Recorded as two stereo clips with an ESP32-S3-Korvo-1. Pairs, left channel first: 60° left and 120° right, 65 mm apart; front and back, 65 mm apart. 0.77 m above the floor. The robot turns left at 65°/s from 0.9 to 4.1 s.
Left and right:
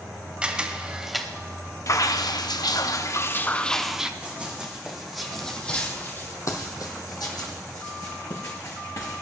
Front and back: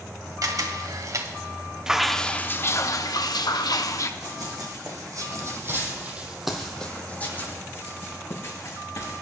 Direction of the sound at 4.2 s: 170° left.